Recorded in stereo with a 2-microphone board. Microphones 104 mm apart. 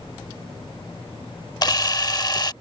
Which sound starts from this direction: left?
A camera shutter, at 1.6 s.